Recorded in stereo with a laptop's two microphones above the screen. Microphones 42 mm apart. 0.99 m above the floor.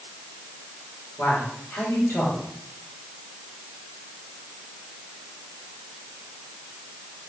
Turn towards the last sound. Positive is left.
turn(degrees=65)  # may be behind; listen again after turning